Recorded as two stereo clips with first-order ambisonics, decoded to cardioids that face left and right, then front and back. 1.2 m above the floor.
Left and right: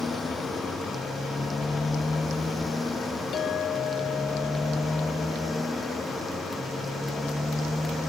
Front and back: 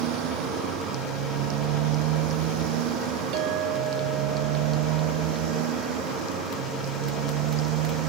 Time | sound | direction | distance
0.0 | a motorcycle | 170° left | ?
3.3 | a clink | 145° left | ?